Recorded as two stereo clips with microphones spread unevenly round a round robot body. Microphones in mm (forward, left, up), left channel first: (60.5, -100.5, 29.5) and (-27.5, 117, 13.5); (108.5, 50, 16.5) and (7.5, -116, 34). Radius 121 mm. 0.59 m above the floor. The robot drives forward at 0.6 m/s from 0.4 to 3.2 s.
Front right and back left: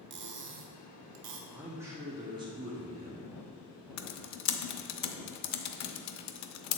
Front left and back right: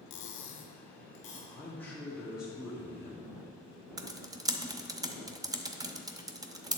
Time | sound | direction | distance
0.1 | cutlery clinking | 70° left | 0.7 m
1.5 | a man speaking | 50° left | 0.9 m
4.0 | typing on a keyboard | 50° right | 0.6 m